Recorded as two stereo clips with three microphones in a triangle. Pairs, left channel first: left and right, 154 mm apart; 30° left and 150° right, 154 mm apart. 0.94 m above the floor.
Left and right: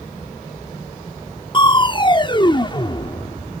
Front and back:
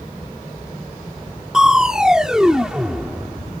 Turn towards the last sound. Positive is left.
turn(degrees=125)